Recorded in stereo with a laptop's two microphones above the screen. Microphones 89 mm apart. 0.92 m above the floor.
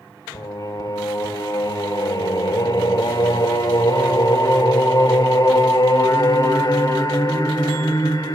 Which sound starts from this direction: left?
Singing, at 0.3 s.